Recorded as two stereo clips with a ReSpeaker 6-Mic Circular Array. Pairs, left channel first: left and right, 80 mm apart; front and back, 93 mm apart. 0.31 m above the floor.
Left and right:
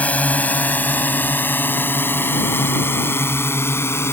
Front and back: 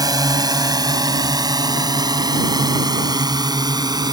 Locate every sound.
0.0 s a drone: 155° left; by 4.1 s 145° left